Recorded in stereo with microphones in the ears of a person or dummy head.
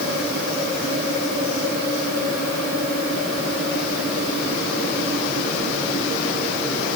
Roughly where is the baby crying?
No baby crying in this recording.